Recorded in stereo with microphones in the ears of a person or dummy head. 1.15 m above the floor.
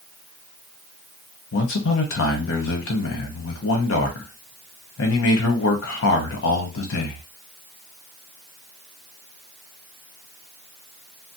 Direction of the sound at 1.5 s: 60° left (ahead or behind).